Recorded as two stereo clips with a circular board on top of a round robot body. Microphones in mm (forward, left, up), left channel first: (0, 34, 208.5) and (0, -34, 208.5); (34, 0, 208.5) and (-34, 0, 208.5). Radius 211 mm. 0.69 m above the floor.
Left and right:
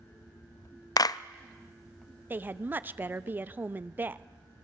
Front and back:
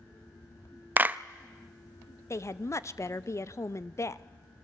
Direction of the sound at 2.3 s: 35° right.